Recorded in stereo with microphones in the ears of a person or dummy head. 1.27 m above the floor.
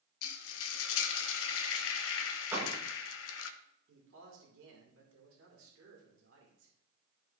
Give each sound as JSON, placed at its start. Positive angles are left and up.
{"t": 0.2, "sound": "frying", "side_deg": 75, "distance_m": 0.8}
{"t": 2.5, "sound": "a door slam", "side_deg": -10, "distance_m": 1.3}
{"t": 3.9, "sound": "a man speaking", "side_deg": -70, "distance_m": 1.9}